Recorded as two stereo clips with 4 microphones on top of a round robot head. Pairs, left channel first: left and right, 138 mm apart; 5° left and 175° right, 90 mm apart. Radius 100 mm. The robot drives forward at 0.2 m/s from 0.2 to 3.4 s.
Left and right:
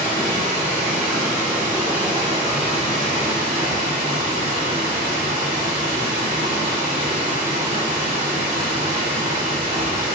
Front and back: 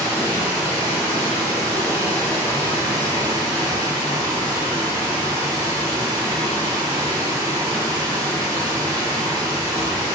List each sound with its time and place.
0.0 s running water: 100° right, 1.6 m; by 10.2 s 120° right, 1.8 m